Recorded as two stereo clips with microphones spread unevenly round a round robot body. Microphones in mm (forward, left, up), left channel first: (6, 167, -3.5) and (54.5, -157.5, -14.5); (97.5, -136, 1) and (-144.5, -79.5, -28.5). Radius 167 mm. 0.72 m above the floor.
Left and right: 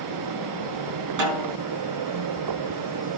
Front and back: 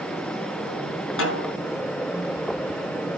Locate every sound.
1.2 s a snare drum: 45° right, 8.5 m